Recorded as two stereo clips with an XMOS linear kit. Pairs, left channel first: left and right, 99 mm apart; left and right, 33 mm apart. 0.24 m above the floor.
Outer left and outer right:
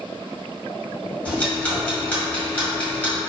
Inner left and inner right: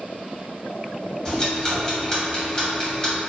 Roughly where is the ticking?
Centre.